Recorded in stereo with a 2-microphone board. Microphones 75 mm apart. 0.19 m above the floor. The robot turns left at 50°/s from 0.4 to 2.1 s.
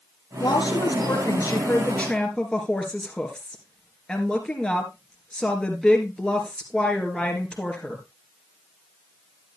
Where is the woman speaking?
95° left, 2.5 m; by 8.0 s 10° left, 2.5 m.